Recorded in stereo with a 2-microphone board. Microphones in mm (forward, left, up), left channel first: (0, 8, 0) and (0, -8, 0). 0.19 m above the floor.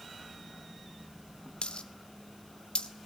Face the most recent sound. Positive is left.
turn(degrees=70)  # may be behind; listen again after turning